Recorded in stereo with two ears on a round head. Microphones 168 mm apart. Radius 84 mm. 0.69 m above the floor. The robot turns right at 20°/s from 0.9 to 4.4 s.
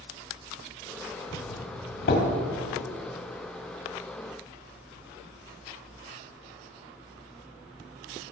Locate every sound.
1.3 s a doorbell: 55° left (ahead or behind), 1.9 m; by 2.3 s 50° left (ahead or behind), 1.9 m